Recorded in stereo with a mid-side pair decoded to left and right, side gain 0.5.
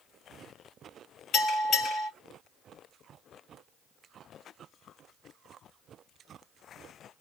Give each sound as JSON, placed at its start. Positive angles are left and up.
{"t": 1.3, "sound": "a bell", "azimuth_deg": 60, "distance_m": 3.0}